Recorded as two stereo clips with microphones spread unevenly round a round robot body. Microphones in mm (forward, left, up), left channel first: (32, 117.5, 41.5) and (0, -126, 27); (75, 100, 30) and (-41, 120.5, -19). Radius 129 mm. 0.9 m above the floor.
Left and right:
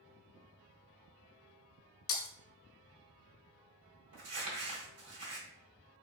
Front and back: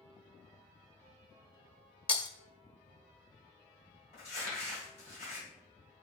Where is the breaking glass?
55° left, 0.9 m.